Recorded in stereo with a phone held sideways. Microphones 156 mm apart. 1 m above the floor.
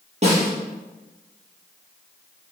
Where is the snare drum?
40° right (ahead or behind), 5 m.